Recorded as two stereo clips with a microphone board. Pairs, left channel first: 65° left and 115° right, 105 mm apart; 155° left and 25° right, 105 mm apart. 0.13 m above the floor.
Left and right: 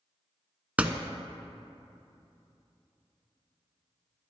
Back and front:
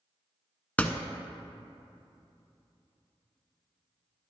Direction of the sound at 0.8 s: 160° right.